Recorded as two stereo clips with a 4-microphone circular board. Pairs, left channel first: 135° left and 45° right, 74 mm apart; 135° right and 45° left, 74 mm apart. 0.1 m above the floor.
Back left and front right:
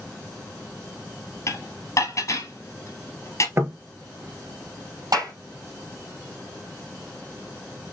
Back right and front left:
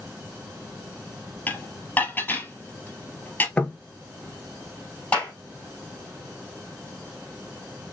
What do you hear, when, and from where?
1.5 s dishes clattering: 165° left, 1.6 m
3.6 s knocking: 70° right, 1.0 m
5.1 s a clap: 65° right, 3.5 m